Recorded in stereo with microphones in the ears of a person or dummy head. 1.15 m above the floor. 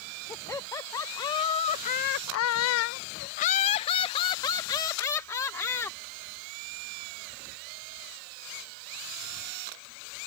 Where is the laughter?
15° left (ahead or behind).